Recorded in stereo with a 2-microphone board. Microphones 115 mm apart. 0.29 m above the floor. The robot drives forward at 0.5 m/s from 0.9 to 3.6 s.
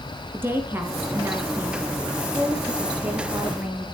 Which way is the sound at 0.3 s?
20° right (ahead or behind).